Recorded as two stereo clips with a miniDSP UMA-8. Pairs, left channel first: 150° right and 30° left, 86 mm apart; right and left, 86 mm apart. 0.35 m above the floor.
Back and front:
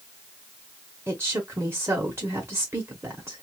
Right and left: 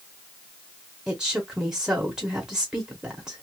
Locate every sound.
1.1 s a woman speaking: 20° left, 0.9 m